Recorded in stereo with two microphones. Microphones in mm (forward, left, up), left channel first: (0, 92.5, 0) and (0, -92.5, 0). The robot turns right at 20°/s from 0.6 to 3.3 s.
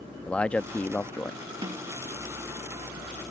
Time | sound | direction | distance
0.3 | a man speaking | 5° left (ahead or behind) | ?
1.6 | a snare drum | 30° right (ahead or behind) | ?